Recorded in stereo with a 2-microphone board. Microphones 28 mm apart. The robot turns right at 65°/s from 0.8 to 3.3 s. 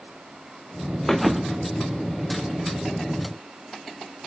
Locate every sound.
1.1 s a thud: 170° left, 1.6 m; by 1.7 s 145° right, 1.6 m